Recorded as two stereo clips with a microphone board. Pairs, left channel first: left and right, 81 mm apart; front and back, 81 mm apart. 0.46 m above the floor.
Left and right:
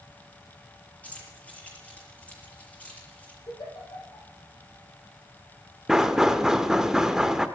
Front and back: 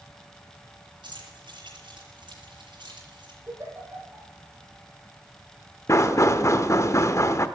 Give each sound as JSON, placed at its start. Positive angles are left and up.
{"t": 1.0, "sound": "keys jangling", "azimuth_deg": 165, "distance_m": 6.0}
{"t": 3.5, "sound": "a giggle", "azimuth_deg": 120, "distance_m": 5.5}
{"t": 5.9, "sound": "knocking", "azimuth_deg": -10, "distance_m": 0.8}